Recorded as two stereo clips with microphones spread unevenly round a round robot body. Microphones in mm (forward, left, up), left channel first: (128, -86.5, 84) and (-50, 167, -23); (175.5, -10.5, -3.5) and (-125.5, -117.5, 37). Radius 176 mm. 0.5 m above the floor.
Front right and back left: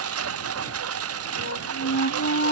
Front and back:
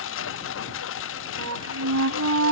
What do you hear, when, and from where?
0.0 s a lawn mower: 80° left
1.4 s a flute: 115° right